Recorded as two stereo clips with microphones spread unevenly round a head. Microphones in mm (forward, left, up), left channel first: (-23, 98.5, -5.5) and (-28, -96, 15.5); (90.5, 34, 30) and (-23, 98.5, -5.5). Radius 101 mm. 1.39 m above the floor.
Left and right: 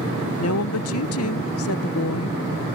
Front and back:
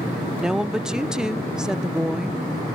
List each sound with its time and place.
0.4 s a woman speaking: 65° left